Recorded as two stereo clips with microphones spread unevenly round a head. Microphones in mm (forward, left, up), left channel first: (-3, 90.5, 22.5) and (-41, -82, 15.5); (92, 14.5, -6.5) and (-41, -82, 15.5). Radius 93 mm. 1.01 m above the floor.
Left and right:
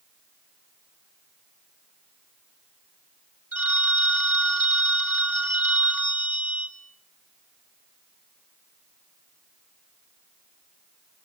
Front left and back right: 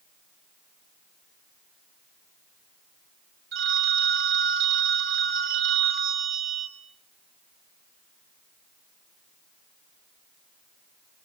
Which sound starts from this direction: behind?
A phone ringing, at 3.5 s.